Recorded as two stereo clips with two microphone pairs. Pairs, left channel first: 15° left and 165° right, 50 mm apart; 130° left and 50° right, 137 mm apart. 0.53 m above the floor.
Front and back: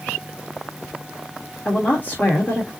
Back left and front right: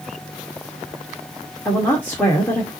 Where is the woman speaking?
60° left, 1.5 m.